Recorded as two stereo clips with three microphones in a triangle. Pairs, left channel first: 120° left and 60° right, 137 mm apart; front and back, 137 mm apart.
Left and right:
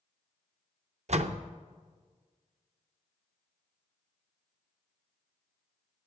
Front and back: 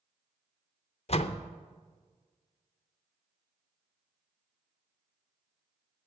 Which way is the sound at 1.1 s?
35° right.